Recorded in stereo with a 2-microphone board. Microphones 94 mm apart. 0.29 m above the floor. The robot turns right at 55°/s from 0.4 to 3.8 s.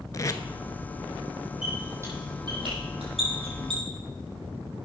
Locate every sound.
0.1 s tape being pulled: 40° left (ahead or behind), 0.6 m; by 0.4 s 35° left (ahead or behind), 0.6 m
1.6 s a squeak: 5° right (ahead or behind), 5 m; by 3.8 s 55° right (ahead or behind), 5 m